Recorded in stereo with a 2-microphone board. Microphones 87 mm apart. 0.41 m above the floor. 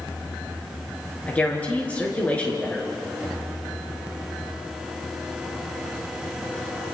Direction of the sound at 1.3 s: 15° left (ahead or behind).